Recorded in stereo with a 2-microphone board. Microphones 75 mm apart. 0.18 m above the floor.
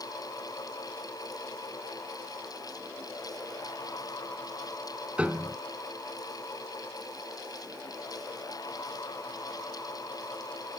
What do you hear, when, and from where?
5.2 s a piano: 15° right (ahead or behind)